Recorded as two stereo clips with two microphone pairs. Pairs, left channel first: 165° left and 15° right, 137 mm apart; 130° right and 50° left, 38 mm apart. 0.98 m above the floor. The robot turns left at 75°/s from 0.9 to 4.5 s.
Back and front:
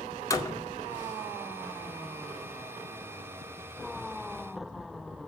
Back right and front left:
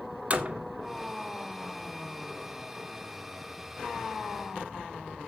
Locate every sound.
0.3 s a door slam: 100° left, 1.8 m